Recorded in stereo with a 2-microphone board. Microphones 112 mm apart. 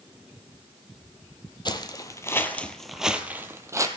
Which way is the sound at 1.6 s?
40° left (ahead or behind).